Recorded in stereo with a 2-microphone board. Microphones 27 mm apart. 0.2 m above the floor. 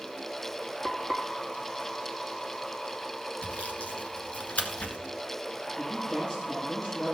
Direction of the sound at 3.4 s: 60° left (ahead or behind).